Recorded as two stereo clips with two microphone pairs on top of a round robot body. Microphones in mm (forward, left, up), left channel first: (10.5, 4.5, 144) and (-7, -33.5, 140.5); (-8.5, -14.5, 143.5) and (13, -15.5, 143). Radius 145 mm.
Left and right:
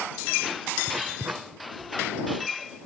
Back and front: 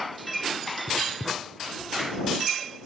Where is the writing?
80° right.